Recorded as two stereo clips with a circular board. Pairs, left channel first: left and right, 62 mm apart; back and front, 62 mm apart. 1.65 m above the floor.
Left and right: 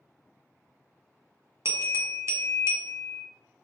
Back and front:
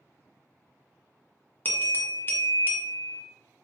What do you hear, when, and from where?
1.6 s a bell: 125° right, 0.9 m